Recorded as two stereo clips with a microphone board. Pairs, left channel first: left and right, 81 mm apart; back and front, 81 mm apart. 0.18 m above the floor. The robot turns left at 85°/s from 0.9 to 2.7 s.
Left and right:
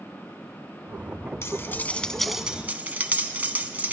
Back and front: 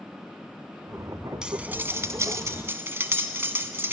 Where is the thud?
I don't hear a thud.